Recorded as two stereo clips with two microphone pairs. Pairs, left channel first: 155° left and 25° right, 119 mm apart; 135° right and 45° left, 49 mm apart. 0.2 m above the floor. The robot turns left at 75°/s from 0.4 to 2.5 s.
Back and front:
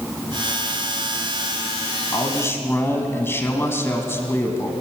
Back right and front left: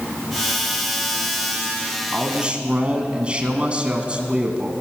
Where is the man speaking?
125° left, 1.4 m; by 4.7 s 95° left, 1.4 m.